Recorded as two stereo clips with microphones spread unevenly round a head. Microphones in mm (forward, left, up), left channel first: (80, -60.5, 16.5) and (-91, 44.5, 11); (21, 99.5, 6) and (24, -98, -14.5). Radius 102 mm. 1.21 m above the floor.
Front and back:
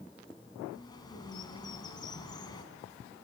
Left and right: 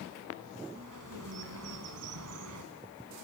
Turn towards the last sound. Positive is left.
turn(degrees=-100)